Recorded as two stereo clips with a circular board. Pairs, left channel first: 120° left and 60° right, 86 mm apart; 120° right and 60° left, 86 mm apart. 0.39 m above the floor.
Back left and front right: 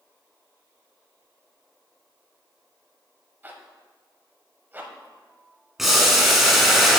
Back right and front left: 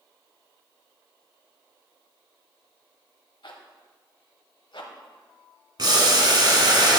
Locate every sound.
3.4 s a zipper: 125° right, 0.8 m
5.8 s boiling: 25° left, 1.1 m